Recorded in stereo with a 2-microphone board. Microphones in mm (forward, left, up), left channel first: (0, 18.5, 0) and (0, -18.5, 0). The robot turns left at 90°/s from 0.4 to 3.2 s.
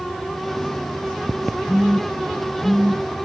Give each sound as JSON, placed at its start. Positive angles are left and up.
{"t": 1.7, "sound": "a phone buzzing", "side_deg": 15, "distance_m": 2.5}